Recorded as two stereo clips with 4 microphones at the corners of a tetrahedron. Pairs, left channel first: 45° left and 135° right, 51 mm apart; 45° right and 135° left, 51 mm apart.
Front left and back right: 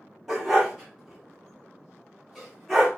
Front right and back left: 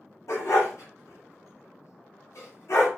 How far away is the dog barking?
About 1.2 m.